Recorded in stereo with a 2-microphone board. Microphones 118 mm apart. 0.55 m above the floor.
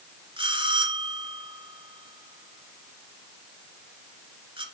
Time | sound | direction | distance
0.4 | a bell | 50° right (ahead or behind) | 2 m